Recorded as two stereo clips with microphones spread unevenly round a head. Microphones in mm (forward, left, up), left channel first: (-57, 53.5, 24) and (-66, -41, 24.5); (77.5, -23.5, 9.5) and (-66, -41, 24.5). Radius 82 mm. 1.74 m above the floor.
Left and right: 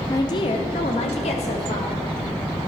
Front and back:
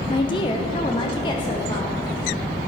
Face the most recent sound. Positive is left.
turn(degrees=75)